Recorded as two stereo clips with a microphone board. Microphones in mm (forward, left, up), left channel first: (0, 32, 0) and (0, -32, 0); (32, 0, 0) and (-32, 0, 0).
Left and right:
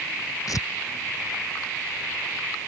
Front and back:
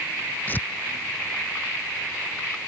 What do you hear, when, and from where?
0.5 s tearing paper: 60° left